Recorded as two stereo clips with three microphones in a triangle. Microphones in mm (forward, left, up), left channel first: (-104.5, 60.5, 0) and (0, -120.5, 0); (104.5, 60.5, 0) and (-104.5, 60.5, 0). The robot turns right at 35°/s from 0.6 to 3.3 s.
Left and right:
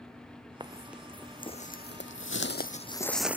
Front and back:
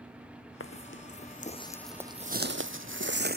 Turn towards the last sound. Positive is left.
turn(degrees=-140)